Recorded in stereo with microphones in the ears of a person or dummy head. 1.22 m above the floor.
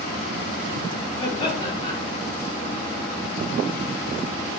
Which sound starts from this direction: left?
Laughter, at 1.2 s.